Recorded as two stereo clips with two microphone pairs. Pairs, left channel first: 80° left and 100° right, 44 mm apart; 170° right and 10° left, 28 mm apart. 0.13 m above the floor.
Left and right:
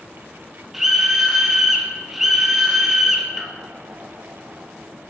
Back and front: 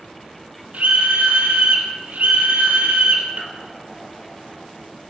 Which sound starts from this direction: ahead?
A scream, at 0.7 s.